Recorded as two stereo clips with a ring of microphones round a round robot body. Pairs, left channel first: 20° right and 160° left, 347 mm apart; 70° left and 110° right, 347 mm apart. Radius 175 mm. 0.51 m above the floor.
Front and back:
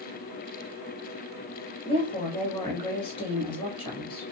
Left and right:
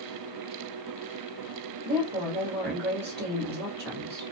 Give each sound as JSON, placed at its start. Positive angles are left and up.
{"t": 1.9, "sound": "a woman speaking", "azimuth_deg": -85, "distance_m": 1.2}